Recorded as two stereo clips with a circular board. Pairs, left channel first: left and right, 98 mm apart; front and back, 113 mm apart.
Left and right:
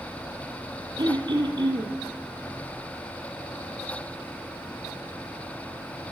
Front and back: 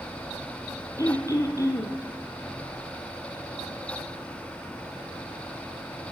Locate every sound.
1.0 s throat clearing: 60° right, 1.3 m